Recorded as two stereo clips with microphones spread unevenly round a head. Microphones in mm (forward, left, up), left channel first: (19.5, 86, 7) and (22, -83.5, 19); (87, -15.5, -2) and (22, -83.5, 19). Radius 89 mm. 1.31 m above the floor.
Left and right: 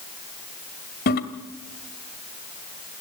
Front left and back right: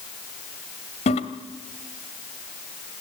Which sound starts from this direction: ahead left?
A toilet flushing, at 1.1 s.